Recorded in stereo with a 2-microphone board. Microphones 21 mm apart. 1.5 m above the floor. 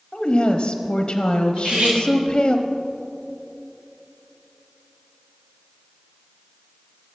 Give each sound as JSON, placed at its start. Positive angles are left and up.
{"t": 0.1, "sound": "a woman speaking", "side_deg": 35, "distance_m": 0.8}
{"t": 1.6, "sound": "cutlery clinking", "side_deg": -75, "distance_m": 2.5}